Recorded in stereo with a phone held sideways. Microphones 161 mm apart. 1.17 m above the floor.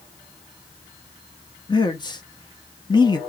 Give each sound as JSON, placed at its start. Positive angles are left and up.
{"t": 1.7, "sound": "a man speaking", "side_deg": 25, "distance_m": 0.8}